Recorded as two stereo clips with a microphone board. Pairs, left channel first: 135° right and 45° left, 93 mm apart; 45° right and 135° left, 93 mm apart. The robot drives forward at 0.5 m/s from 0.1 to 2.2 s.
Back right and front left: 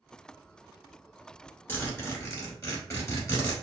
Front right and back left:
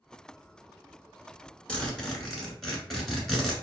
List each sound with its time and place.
1.7 s a zipper: 110° right, 1.1 m; by 3.5 s 135° right, 1.2 m